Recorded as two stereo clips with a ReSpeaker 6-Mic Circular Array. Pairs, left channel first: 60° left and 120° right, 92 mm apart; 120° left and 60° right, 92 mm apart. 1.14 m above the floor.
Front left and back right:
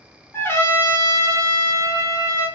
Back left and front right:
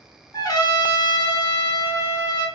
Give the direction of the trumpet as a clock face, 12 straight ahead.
8 o'clock.